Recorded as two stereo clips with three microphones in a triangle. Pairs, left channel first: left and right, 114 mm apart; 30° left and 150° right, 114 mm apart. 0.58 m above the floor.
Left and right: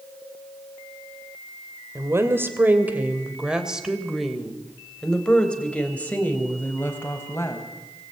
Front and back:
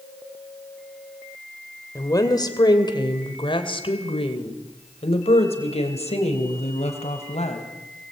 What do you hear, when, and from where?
1.9 s a woman speaking: 25° right, 3 m; by 7.6 s 20° left, 4 m